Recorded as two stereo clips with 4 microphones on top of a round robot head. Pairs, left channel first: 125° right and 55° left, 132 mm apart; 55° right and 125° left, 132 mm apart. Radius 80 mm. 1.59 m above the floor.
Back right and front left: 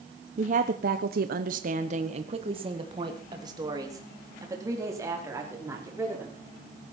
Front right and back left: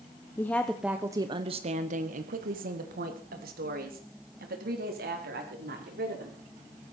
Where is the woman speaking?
20° left, 1.2 m; by 6.4 s 130° left, 5.5 m.